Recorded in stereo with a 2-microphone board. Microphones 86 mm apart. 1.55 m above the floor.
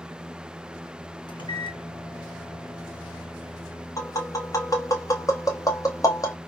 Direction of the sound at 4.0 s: 40° left (ahead or behind).